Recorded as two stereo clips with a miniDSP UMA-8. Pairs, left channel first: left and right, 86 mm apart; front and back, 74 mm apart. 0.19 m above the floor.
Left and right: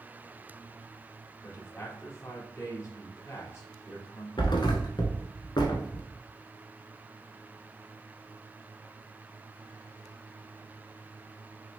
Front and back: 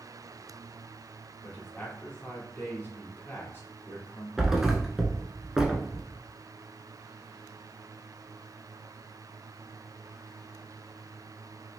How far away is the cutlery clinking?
I don't hear cutlery clinking.